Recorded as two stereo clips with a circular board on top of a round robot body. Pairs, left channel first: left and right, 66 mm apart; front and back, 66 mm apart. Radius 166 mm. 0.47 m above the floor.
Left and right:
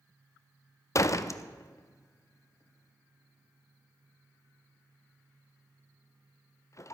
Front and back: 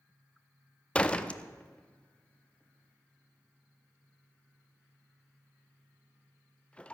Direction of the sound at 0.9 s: 70° left.